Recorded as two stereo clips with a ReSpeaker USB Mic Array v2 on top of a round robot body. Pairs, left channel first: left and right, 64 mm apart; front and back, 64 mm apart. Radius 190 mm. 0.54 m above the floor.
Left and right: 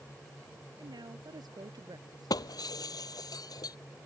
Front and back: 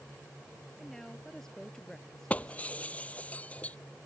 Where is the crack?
No crack in this recording.